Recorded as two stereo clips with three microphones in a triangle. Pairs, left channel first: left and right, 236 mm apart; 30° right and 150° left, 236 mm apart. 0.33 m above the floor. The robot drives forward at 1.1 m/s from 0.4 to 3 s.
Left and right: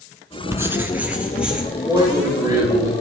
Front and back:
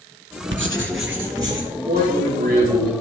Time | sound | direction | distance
0.5 | writing | 165° right | 0.6 m
1.9 | a man speaking | 160° right | 3.5 m